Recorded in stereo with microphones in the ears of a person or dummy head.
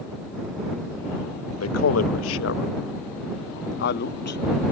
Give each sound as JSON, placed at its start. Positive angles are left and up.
{"t": 1.6, "sound": "a man speaking", "side_deg": 75}